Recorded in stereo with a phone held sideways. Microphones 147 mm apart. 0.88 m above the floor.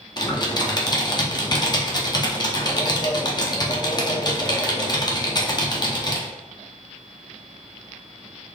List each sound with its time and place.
0.2 s typing on a keyboard: 30° left (ahead or behind), 0.6 m